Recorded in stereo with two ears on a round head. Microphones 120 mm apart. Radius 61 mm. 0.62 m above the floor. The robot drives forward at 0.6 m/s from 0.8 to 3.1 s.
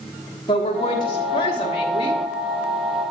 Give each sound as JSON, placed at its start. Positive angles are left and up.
{"t": 0.5, "sound": "a woman speaking", "side_deg": 35, "distance_m": 1.3}